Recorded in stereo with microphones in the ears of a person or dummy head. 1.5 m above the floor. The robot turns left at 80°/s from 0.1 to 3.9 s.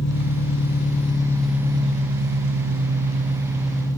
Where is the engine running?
110° left, 1.6 m; by 4.0 s 165° left, 1.6 m.